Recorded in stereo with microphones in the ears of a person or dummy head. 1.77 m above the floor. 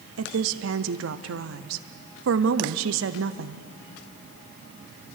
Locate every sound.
0.2 s a woman speaking: 75° right (ahead or behind), 0.8 m